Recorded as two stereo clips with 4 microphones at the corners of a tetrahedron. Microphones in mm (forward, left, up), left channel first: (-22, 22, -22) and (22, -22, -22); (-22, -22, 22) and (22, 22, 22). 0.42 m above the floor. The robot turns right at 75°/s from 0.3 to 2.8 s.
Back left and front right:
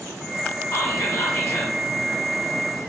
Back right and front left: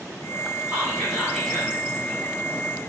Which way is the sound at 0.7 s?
100° left.